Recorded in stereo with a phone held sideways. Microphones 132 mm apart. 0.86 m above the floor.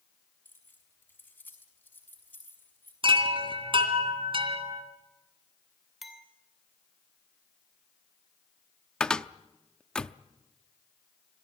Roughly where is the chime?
Right.